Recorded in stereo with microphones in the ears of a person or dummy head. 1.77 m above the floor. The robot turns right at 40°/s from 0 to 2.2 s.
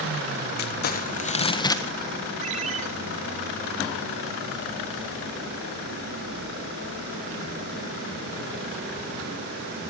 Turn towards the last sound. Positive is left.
turn(degrees=-45)  # may be behind; listen again after turning